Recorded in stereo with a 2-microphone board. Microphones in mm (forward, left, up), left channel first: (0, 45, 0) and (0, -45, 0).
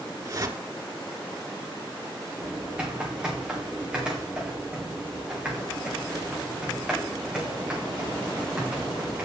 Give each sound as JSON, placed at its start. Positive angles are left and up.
{"t": 0.2, "sound": "a whoosh", "side_deg": -40, "distance_m": 1.4}
{"t": 2.4, "sound": "typing on a keyboard", "side_deg": -10, "distance_m": 4.0}